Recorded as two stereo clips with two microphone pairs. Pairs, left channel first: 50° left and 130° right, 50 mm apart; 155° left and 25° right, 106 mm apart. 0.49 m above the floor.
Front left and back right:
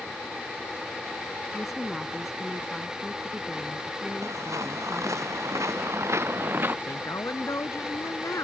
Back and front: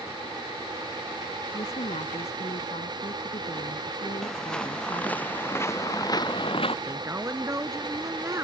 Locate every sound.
1.5 s a woman speaking: 145° left
4.2 s footsteps: 120° right; by 6.8 s straight behind
6.9 s a woman speaking: 40° left